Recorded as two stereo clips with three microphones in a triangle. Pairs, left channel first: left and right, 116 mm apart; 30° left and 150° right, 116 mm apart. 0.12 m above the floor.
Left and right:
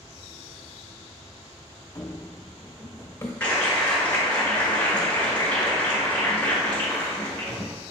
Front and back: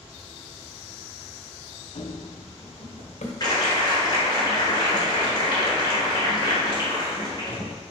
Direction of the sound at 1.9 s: 30° left.